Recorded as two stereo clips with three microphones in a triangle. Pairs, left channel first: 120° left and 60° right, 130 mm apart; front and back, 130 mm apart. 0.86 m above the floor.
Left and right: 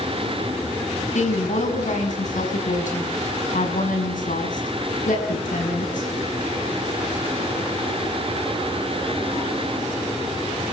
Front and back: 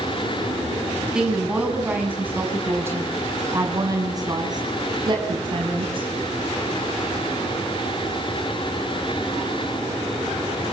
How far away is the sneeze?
I don't hear a sneeze.